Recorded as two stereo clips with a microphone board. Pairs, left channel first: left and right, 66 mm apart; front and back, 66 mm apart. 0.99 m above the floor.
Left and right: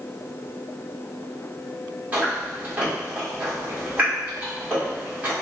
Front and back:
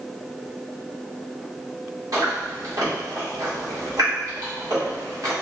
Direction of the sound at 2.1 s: 155° right.